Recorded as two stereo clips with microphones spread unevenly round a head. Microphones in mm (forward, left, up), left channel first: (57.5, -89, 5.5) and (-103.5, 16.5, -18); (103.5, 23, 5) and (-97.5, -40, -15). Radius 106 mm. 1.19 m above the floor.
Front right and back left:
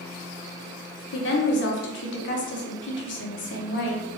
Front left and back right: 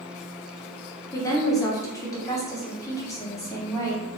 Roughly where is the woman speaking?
Ahead right.